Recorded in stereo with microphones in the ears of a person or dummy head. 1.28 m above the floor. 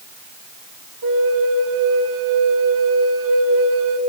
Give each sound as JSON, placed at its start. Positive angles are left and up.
{"t": 1.0, "sound": "a flute", "side_deg": -70, "distance_m": 1.3}